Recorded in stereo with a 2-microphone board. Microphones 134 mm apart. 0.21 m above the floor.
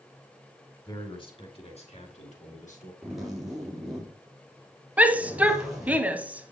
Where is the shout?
10° right (ahead or behind), 1.0 m.